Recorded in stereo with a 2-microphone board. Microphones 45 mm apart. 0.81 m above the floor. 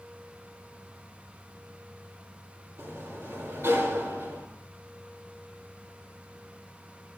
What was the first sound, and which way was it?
A sliding door, 75° right (ahead or behind).